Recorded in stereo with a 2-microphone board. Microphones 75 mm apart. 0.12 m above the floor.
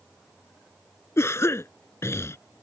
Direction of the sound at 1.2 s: 40° left (ahead or behind).